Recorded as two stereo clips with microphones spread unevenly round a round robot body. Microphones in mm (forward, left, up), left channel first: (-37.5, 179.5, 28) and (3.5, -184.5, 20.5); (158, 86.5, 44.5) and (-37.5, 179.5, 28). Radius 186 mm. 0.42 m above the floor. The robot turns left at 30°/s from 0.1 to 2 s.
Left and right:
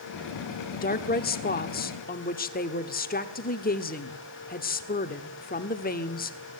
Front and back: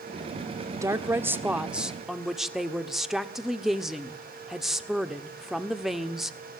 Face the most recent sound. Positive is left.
turn(degrees=80)